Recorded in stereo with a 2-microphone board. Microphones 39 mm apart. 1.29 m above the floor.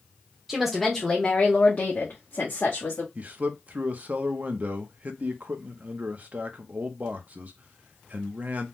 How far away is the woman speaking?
About 0.8 m.